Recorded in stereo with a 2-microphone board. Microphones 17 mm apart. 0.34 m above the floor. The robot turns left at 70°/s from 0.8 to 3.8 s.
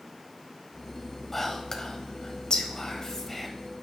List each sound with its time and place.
1.3 s whispering: 15° left (ahead or behind), 1.5 m; by 3.5 s 10° left (ahead or behind), 1.5 m